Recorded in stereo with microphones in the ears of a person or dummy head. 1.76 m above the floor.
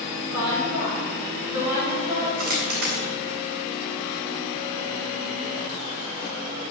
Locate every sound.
0.3 s a woman speaking: 20° right (ahead or behind), 7 m
2.4 s a dropped coin: 55° right (ahead or behind), 3.5 m